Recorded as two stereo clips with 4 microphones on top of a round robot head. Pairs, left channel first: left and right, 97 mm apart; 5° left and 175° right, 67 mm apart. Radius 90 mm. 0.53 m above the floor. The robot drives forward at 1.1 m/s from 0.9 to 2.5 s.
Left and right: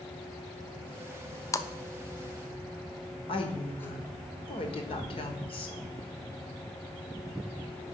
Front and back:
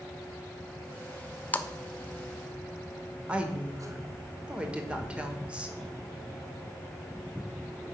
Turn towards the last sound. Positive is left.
turn(degrees=110)